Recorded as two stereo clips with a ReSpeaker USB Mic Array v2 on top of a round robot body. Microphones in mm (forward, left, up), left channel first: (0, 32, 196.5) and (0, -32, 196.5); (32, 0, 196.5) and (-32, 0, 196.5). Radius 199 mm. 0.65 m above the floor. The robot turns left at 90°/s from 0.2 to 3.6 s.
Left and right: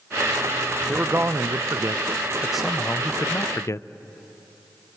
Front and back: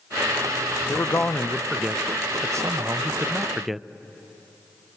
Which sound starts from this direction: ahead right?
A man speaking, at 0.9 s.